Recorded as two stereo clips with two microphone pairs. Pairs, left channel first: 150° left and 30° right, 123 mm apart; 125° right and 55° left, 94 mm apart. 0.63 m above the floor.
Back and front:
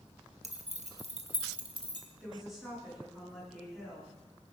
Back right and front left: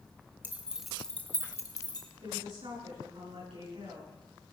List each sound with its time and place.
0.4 s keys jangling: 15° right, 1.4 m; by 2.1 s 90° right, 1.7 m
2.2 s a woman speaking: 55° left, 9.5 m